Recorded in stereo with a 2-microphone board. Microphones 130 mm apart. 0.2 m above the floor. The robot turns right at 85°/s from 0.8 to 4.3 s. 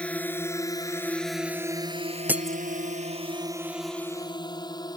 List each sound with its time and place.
0.0 s a drone: 10° left (ahead or behind); by 5.0 s 30° left (ahead or behind)
2.3 s breaking glass: 15° right (ahead or behind); by 2.6 s 10° left (ahead or behind)